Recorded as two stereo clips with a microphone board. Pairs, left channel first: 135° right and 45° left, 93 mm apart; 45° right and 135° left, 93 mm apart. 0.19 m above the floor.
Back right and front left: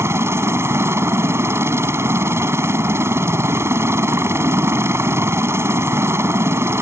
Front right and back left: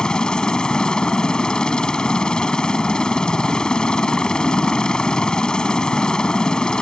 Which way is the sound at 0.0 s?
30° left.